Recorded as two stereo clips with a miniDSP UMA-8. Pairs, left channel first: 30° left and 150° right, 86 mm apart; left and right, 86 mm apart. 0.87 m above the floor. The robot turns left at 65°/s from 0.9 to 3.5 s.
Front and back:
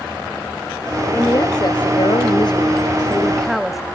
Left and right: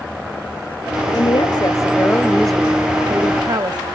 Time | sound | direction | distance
1.1 | a woman speaking | 90° left | 1.2 m